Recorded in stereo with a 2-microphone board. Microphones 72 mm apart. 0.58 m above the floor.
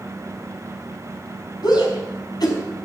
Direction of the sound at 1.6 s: 75° left (ahead or behind).